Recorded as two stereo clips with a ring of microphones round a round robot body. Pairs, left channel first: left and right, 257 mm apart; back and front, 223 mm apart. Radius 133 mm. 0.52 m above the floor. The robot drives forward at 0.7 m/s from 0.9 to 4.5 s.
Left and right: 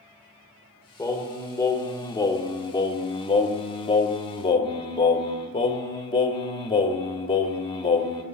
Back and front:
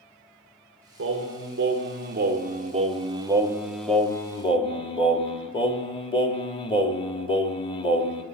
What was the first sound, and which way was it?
Singing, 10° left.